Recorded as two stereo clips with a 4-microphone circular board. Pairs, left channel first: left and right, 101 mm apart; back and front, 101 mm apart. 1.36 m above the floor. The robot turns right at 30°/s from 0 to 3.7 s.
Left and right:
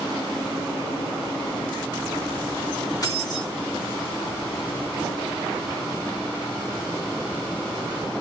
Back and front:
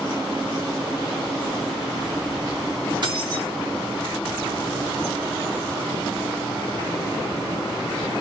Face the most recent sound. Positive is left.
turn(degrees=60)